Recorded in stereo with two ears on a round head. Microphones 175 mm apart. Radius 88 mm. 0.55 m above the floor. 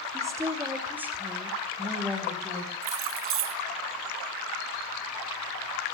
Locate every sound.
0.1 s a woman speaking: 15° right (ahead or behind), 2.5 m; by 2.7 s centre (ahead or behind), 4 m
2.8 s keys jangling: 65° right (ahead or behind), 2.5 m